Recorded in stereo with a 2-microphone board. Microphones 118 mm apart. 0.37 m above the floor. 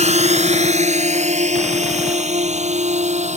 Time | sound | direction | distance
0.0 | a drone | 75° right (ahead or behind) | ?